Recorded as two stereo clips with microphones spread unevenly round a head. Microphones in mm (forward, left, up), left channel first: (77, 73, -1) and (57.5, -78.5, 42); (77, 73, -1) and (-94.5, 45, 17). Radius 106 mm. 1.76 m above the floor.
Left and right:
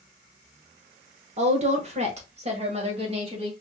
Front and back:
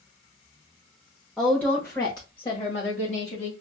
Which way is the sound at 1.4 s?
85° right.